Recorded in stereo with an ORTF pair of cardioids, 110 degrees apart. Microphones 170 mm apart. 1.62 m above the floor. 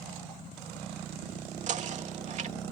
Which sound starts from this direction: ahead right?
Knocking, at 1.7 s.